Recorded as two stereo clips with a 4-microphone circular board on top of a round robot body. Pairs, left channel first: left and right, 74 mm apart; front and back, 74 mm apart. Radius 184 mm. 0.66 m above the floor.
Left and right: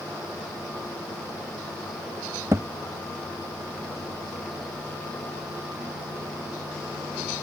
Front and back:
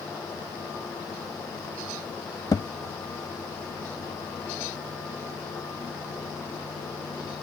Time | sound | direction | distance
2.5 | a thud | 40° right | ?